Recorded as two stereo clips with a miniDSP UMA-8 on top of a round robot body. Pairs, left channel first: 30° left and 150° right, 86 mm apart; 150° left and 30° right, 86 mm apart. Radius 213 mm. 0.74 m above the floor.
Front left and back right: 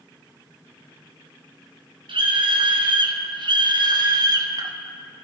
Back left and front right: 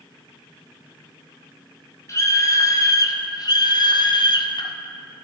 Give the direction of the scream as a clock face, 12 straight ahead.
5 o'clock.